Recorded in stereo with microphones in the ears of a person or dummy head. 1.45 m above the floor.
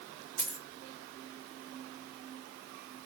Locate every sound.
0.4 s a dropped coin: 5° left (ahead or behind), 1.9 m